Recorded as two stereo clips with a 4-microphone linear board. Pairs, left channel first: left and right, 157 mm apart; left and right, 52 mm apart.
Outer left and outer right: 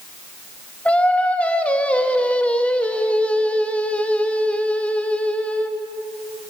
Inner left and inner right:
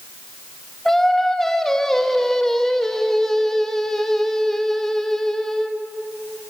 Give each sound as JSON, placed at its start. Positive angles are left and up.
{"t": 0.8, "sound": "singing", "side_deg": 10, "distance_m": 1.6}